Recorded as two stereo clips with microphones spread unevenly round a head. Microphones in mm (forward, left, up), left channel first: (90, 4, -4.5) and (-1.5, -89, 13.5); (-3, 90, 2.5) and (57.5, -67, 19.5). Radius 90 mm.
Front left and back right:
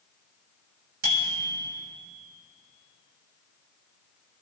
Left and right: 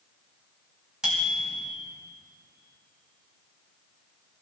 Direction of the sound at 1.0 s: 155° right.